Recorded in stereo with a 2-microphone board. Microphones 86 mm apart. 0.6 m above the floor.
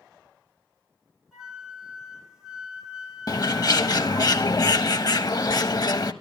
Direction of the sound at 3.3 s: 50° left (ahead or behind).